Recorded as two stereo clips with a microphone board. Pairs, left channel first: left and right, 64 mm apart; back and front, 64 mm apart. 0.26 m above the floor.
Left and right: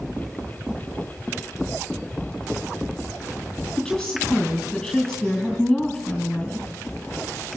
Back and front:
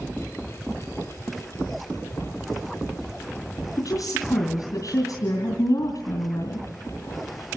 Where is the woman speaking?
175° left, 2.5 m.